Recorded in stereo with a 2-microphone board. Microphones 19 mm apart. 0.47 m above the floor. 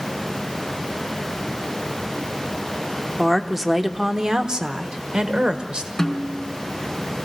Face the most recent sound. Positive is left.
turn(degrees=10)  # may be behind; listen again after turning